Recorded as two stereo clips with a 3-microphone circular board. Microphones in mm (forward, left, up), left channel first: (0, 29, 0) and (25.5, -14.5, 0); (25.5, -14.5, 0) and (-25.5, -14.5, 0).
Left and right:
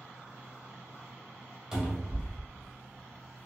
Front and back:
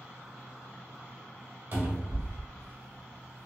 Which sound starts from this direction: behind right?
A cupboard door, at 1.7 s.